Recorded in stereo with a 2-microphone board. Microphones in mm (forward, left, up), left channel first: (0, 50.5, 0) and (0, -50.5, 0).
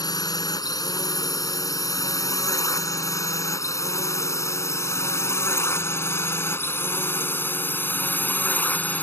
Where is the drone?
40° left (ahead or behind); by 9.0 s 15° left (ahead or behind).